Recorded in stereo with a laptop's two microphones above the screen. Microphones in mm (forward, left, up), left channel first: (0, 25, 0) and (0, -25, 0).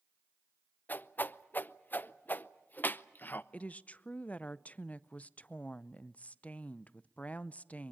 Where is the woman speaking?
30° left (ahead or behind), 0.5 m.